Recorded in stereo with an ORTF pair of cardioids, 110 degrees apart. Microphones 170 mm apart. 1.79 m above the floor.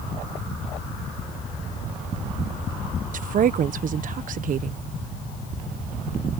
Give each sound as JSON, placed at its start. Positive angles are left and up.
{"t": 3.1, "sound": "a woman speaking", "azimuth_deg": -55}